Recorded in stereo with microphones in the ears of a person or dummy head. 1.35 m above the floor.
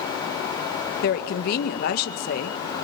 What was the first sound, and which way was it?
A woman speaking, 55° left (ahead or behind).